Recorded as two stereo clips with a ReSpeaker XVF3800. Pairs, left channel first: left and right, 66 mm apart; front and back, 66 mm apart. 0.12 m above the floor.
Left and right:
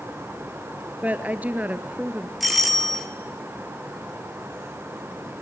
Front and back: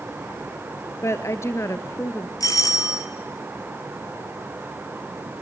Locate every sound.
1.0 s a woman speaking: 30° right, 1.7 m
2.4 s a doorbell: straight ahead, 3 m